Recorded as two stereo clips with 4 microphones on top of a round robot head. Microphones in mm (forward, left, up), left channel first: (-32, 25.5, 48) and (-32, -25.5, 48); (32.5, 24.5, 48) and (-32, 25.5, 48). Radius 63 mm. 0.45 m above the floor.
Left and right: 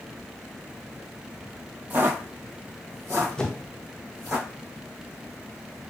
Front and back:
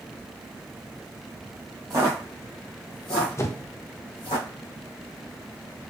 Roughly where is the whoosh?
Ahead.